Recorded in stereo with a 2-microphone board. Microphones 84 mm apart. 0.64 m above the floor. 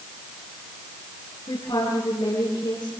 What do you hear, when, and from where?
1.5 s a woman speaking: 75° left (ahead or behind), 9 m